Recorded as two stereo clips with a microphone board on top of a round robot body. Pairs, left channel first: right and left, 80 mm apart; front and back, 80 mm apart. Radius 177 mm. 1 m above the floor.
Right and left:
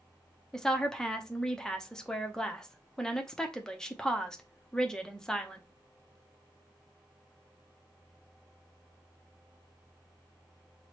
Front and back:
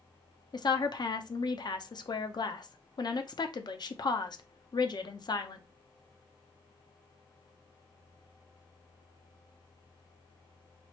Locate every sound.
0.5 s a woman speaking: 5° right, 0.7 m